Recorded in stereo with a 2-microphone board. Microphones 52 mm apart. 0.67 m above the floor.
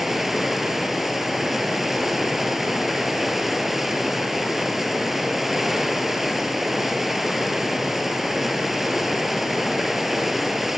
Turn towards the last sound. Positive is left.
turn(degrees=-5)  # may be behind; listen again after turning